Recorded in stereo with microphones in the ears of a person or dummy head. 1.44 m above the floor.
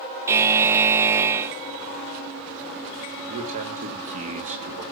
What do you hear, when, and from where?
0.3 s a buzzer: 15° right (ahead or behind), 0.6 m
3.3 s a man speaking: 40° right (ahead or behind), 3 m